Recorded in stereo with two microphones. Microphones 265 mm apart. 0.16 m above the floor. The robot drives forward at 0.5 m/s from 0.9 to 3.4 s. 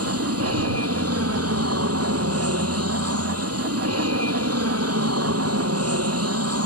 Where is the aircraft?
65° right (ahead or behind).